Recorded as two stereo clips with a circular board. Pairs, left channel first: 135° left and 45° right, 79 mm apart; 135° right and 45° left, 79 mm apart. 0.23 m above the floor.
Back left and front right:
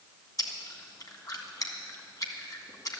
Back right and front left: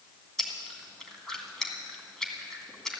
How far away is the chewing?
About 2 m.